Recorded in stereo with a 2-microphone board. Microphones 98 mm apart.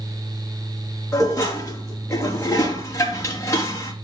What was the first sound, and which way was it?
Dishes clattering, 25° left (ahead or behind).